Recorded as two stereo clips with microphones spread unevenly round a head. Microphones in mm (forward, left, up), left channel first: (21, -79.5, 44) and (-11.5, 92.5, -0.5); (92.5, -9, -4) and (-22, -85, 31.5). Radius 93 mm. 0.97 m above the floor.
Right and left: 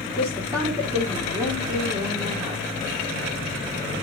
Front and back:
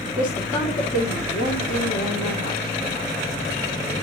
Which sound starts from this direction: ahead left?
A woman speaking, at 0.2 s.